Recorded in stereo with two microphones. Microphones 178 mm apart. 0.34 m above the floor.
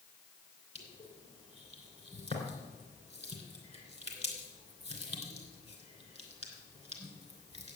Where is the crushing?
35° left (ahead or behind), 3 m.